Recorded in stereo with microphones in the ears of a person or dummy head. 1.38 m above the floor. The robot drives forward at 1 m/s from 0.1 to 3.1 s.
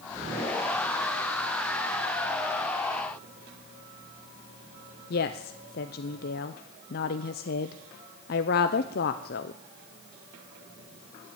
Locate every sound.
5.1 s a woman speaking: 50° left (ahead or behind), 0.6 m